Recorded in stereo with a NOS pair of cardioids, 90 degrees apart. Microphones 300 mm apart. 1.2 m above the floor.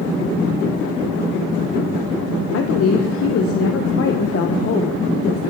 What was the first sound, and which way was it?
A woman speaking, 50° left.